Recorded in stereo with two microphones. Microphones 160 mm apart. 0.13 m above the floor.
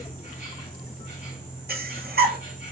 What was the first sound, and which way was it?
An insect, 50° left (ahead or behind).